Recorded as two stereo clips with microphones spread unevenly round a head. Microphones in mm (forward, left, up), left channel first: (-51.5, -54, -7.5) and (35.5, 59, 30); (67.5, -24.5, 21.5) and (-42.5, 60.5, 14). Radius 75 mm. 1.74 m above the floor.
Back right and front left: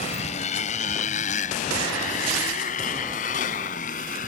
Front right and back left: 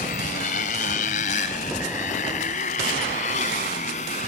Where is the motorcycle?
75° right; by 4.3 s 85° right.